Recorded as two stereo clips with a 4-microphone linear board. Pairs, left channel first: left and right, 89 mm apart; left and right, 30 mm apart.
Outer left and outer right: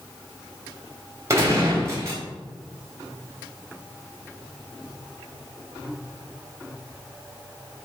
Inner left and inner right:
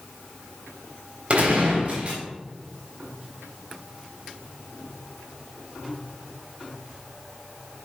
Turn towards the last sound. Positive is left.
turn(degrees=-35)  # may be behind; listen again after turning